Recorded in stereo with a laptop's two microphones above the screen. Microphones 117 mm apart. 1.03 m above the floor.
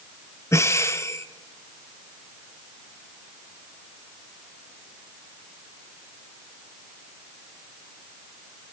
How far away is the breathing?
About 0.7 m.